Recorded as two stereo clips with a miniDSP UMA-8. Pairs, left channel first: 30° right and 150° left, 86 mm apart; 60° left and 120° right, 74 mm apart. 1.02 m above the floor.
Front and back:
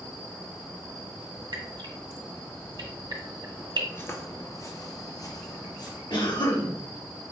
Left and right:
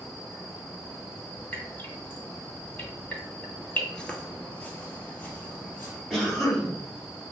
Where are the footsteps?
10° right, 1.1 m; by 6.0 s straight ahead, 2 m.